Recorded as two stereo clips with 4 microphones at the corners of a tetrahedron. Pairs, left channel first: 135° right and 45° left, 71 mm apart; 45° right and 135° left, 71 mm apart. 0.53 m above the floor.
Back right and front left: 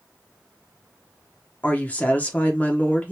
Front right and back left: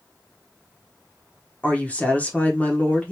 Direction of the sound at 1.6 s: 90° right.